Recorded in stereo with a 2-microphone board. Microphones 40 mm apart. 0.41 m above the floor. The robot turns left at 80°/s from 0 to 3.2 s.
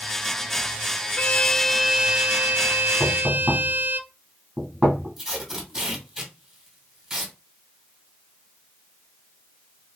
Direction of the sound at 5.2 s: 15° right (ahead or behind).